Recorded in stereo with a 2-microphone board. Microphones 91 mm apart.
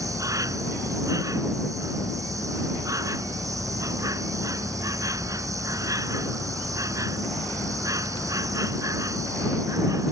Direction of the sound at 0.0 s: 40° right (ahead or behind).